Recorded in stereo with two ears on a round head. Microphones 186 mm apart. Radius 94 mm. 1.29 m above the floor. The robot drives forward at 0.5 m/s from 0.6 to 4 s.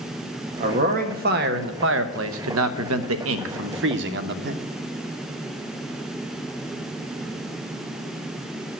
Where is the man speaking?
35° right (ahead or behind), 1.5 m; by 4.5 s 60° right (ahead or behind), 1.1 m.